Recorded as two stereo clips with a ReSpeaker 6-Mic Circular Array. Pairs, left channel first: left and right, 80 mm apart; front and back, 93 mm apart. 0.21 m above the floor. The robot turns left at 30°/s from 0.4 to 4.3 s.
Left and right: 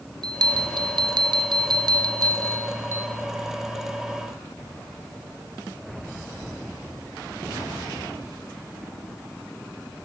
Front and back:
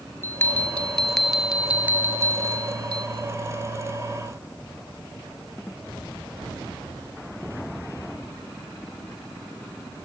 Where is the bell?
65° right, 1.8 m; by 3.1 s 145° right, 1.8 m.